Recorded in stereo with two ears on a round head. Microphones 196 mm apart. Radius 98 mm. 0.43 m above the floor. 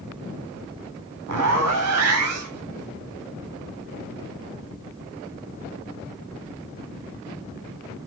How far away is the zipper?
About 0.9 m.